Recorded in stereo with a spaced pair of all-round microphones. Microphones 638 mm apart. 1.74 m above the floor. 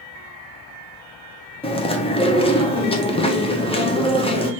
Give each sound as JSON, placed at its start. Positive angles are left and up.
{"t": 1.6, "sound": "chewing", "side_deg": 10, "distance_m": 0.7}